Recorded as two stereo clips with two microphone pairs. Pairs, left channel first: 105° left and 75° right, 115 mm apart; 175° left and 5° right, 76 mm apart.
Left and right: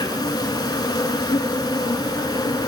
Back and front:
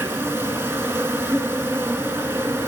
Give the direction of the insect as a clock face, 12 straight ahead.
10 o'clock.